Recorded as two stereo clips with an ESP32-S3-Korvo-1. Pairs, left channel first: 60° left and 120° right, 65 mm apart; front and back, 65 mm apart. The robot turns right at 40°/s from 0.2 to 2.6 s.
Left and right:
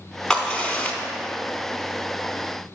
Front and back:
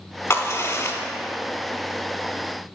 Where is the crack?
15° right, 0.7 m; by 1.0 s 10° left, 0.7 m.